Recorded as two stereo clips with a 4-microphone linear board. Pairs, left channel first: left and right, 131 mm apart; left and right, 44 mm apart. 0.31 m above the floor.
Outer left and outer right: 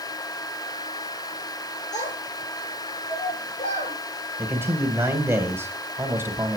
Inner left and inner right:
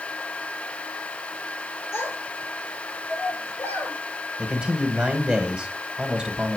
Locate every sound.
1.9 s a child speaking: 65° left (ahead or behind), 3 m; by 4.0 s 80° left, 5 m
4.4 s a man speaking: 20° right (ahead or behind), 1.9 m